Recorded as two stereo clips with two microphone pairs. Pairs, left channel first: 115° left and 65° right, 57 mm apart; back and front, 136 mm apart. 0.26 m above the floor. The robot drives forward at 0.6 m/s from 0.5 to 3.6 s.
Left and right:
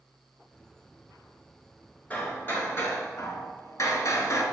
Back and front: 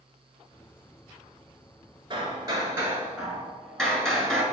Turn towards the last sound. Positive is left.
turn(degrees=95)